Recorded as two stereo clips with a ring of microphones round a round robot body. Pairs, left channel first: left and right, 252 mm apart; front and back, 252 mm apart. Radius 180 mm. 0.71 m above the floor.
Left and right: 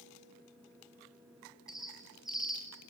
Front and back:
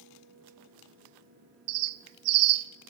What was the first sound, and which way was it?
A bird, straight behind.